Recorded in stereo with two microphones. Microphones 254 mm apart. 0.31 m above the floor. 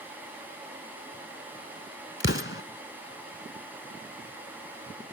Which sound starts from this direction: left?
An explosion, at 2.2 s.